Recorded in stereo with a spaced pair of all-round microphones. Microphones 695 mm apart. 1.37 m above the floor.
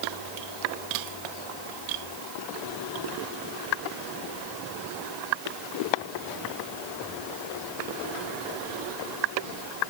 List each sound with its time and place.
Only background noise.